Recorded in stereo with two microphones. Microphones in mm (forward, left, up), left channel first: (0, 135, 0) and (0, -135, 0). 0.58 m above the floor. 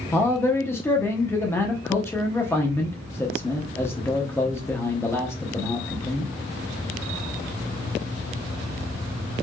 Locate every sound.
0.1 s a man speaking: 10° left (ahead or behind), 0.9 m